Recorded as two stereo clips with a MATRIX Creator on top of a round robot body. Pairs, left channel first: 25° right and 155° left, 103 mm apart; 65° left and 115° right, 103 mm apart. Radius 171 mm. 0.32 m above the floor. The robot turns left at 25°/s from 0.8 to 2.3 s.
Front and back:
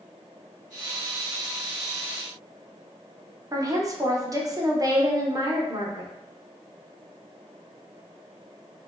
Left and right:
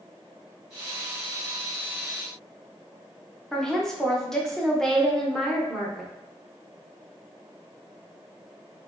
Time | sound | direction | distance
3.5 | a woman speaking | 150° left | 0.9 m